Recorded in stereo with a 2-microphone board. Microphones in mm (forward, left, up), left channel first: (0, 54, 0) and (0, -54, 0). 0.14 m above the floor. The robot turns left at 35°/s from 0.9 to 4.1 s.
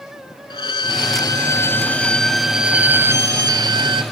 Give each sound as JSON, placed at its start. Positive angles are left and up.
{"t": 0.5, "sound": "a violin", "azimuth_deg": 50, "distance_m": 0.5}